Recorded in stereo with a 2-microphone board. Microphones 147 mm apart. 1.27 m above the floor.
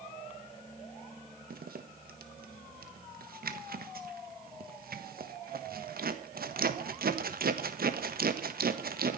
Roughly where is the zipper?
Right.